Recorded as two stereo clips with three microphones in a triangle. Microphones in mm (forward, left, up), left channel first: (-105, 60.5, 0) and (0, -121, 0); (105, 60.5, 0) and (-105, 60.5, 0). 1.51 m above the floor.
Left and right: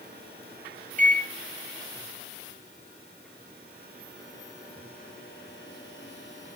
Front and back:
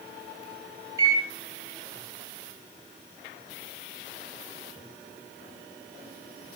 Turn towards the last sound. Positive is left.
turn(degrees=-110)